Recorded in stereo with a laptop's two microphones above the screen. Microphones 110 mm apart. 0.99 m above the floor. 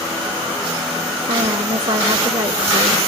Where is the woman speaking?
80° right, 3 m.